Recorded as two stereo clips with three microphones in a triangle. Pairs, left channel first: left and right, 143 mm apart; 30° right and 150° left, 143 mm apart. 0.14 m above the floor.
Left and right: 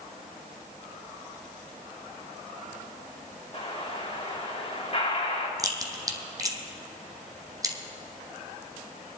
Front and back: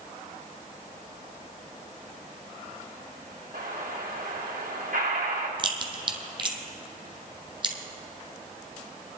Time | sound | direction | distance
3.5 | an explosion | 135° left | 3 m
5.6 | a crack | 155° right | 1.0 m